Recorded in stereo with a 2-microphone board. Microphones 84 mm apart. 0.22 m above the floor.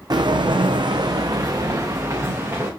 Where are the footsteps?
55° right (ahead or behind), 0.5 m; by 2.7 s 30° right (ahead or behind), 1.5 m.